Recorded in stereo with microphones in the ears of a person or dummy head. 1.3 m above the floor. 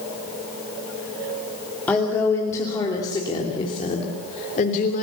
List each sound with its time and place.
1.9 s a woman speaking: 10° left (ahead or behind), 3 m; by 5.0 s 40° left (ahead or behind), 3.5 m